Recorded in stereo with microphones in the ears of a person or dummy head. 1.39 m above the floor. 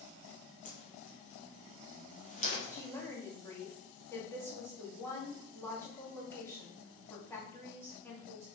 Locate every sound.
0.7 s a whoosh: 35° left (ahead or behind), 1.8 m
2.7 s a woman speaking: 10° left (ahead or behind), 2.5 m